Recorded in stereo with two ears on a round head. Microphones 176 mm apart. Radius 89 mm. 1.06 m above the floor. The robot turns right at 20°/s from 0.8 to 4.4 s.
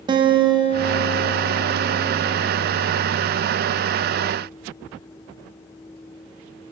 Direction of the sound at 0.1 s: 50° right.